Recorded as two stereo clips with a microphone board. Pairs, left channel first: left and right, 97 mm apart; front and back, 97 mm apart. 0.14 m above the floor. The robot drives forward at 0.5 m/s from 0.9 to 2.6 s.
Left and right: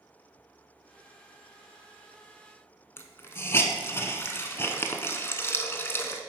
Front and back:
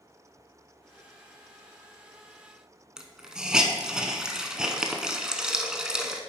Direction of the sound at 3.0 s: 110° left.